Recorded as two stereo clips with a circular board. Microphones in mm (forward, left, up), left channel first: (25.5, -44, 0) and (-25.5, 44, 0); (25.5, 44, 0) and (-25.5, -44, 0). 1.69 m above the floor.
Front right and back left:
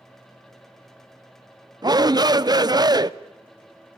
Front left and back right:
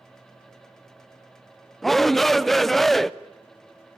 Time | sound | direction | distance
1.8 | a shout | 150° left | 0.6 m